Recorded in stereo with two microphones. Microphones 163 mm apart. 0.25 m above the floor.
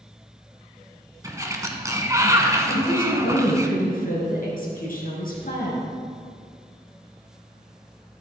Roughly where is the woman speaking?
Left.